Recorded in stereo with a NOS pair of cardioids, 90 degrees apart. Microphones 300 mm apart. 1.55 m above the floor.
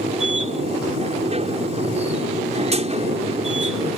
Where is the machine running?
20° right.